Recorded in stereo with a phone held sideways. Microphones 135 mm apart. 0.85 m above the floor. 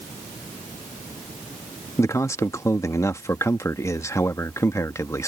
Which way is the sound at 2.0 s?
20° left (ahead or behind).